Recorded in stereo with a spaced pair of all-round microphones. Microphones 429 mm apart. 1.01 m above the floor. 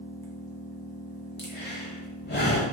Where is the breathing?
25° left (ahead or behind), 0.8 m.